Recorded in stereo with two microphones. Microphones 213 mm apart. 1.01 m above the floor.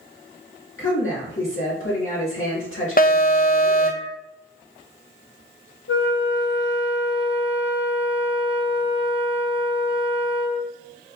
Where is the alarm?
45° left (ahead or behind), 0.5 m.